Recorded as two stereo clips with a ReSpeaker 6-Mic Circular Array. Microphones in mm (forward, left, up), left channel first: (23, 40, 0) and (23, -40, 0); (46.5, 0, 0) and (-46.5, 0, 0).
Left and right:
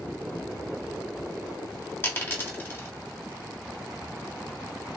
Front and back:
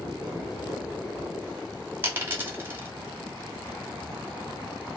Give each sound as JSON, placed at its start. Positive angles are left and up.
{"t": 2.0, "sound": "a dropped coin", "azimuth_deg": 130, "distance_m": 0.9}